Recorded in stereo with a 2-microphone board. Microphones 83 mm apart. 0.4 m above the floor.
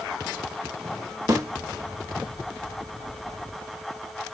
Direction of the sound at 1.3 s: 40° right (ahead or behind).